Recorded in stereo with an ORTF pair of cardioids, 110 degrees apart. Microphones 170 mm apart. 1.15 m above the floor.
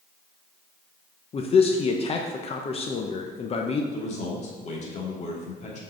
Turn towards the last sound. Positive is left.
turn(degrees=45)